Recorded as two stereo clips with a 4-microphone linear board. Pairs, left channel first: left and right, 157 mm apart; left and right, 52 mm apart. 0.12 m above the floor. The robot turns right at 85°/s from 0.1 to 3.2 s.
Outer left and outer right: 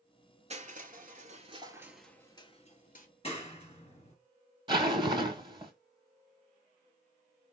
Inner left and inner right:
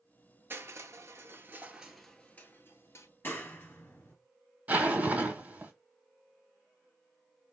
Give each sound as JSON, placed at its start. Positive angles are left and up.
{"t": 0.5, "sound": "crushing", "azimuth_deg": -130, "distance_m": 0.6}
{"t": 3.2, "sound": "a clap", "side_deg": 40, "distance_m": 1.6}
{"t": 4.7, "sound": "a zipper", "side_deg": -30, "distance_m": 0.7}